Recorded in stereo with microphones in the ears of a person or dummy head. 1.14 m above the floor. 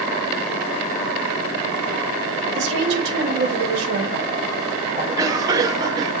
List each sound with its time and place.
2.5 s a woman speaking: 70° right (ahead or behind), 4 m
5.0 s a cough: 25° right (ahead or behind), 1.7 m